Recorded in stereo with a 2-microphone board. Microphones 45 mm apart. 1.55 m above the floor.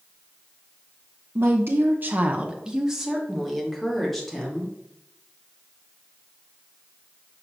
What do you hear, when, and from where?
1.4 s a woman speaking: 60° right (ahead or behind), 0.9 m; by 4.7 s 5° left (ahead or behind), 3 m